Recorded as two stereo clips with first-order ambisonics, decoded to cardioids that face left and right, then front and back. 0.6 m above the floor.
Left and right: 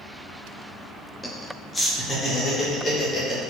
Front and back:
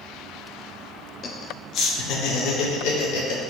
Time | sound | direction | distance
1.2 | laughter | 15° left | 0.8 m